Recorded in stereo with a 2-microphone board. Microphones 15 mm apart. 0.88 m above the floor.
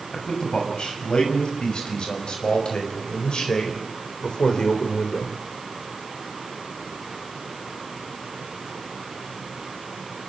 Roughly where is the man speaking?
Left.